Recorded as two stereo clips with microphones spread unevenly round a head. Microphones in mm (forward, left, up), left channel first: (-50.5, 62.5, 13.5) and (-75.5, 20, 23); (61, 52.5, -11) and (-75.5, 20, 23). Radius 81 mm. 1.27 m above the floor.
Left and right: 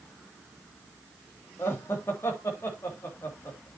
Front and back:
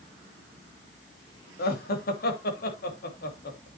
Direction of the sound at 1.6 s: 5° left.